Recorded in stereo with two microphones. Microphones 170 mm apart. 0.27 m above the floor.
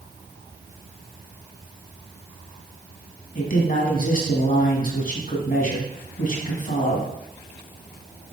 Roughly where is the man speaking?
Left.